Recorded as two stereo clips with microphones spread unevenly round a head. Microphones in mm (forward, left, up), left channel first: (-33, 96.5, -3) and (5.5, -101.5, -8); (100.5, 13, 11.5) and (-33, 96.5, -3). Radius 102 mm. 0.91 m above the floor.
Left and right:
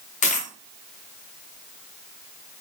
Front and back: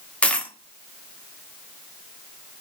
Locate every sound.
0.2 s a dropped coin: 50° left, 0.6 m